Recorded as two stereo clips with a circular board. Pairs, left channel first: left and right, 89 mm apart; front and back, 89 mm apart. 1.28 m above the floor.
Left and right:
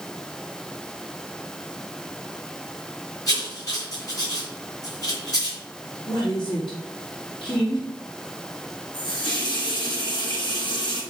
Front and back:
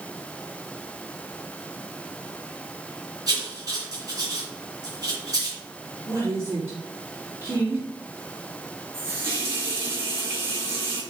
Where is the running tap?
115° left, 3.5 m.